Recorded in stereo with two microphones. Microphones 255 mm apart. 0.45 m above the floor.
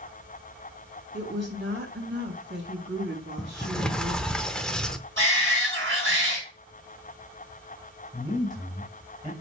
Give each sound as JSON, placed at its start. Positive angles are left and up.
{"t": 1.1, "sound": "a woman speaking", "side_deg": -45, "distance_m": 2.5}
{"t": 3.4, "sound": "a sliding door", "side_deg": 5, "distance_m": 0.6}
{"t": 5.2, "sound": "a shout", "side_deg": -50, "distance_m": 5.0}
{"t": 8.1, "sound": "a man speaking", "side_deg": 0, "distance_m": 2.5}